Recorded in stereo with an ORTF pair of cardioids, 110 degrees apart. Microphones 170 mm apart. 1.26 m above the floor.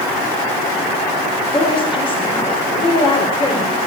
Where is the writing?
No writing in this recording.